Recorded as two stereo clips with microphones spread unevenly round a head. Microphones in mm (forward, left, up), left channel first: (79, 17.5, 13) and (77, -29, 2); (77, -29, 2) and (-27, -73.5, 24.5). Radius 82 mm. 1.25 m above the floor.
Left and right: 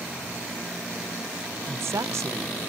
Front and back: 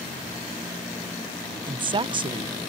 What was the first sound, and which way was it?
A woman speaking, 105° right.